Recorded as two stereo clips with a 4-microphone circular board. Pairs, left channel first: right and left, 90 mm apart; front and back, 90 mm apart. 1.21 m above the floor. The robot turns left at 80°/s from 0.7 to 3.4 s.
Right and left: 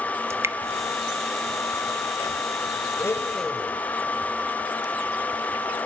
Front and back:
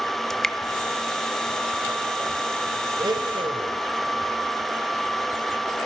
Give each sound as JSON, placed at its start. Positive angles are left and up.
{"t": 0.3, "sound": "dripping", "azimuth_deg": 80, "distance_m": 0.6}
{"t": 3.0, "sound": "a blender", "azimuth_deg": -140, "distance_m": 2.0}